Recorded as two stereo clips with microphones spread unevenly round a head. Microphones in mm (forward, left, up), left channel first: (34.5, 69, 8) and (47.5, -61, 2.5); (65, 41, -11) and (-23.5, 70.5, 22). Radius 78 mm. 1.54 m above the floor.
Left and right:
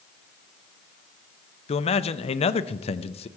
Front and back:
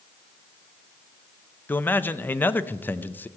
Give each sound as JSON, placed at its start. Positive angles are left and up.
{"t": 1.7, "sound": "a man speaking", "azimuth_deg": 60, "distance_m": 0.6}